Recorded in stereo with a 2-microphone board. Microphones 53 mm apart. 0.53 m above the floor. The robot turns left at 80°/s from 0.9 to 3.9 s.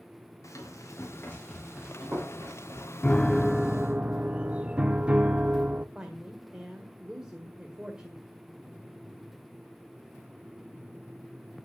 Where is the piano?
40° left, 0.6 m; by 5.8 s 30° right, 0.6 m.